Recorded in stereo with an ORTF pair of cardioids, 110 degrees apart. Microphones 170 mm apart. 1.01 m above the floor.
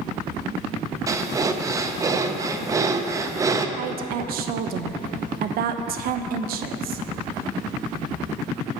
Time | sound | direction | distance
1.1 | breathing | 20° right | 0.5 m
3.8 | a woman speaking | 65° right | 0.6 m